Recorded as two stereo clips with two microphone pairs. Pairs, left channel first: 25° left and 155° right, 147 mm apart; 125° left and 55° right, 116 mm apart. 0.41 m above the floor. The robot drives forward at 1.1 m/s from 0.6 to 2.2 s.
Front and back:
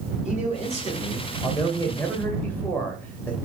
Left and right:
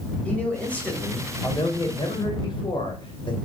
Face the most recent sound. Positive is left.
turn(degrees=100)